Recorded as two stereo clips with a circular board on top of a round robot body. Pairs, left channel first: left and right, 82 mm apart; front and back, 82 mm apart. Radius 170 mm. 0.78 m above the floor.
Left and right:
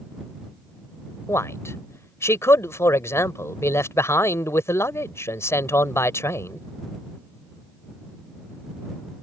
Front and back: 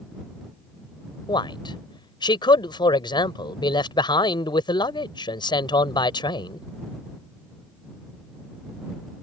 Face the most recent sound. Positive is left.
turn(degrees=30)